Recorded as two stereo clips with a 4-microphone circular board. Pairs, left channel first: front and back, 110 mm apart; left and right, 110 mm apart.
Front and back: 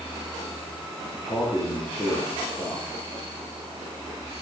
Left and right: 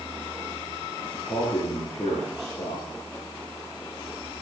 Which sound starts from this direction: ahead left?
A man speaking, at 1.1 s.